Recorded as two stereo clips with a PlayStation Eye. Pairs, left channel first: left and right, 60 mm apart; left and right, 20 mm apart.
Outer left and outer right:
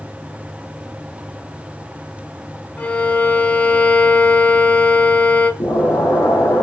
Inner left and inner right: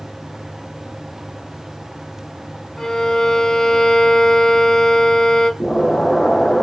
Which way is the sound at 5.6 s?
75° left (ahead or behind).